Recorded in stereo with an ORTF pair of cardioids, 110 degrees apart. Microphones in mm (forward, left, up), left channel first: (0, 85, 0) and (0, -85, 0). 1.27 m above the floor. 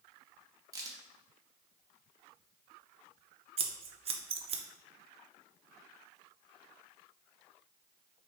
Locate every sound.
0.7 s a crack: 20° right, 1.0 m
3.6 s scissors: 35° right, 0.7 m